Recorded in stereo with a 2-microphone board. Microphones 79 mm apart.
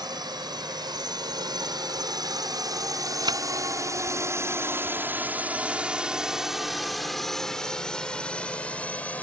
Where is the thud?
65° right (ahead or behind).